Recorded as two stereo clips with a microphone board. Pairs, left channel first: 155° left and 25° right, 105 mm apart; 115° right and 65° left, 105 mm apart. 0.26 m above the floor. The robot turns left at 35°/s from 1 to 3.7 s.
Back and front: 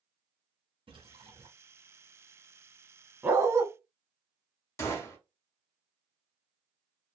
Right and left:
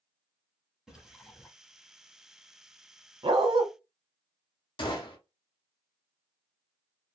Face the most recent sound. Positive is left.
turn(degrees=-145)